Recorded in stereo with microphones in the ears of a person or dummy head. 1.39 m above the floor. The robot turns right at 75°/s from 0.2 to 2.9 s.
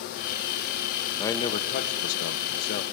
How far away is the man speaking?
About 1.1 m.